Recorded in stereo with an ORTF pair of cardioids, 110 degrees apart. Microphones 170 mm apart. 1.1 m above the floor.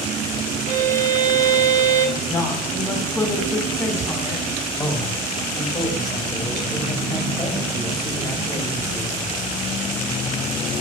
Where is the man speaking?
25° left, 1.8 m.